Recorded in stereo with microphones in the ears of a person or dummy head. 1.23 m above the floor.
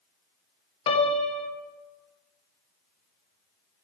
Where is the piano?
30° left (ahead or behind), 1.1 m.